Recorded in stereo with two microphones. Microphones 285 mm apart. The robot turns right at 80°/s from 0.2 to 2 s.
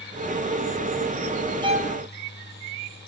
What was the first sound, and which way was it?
A violin, 165° right.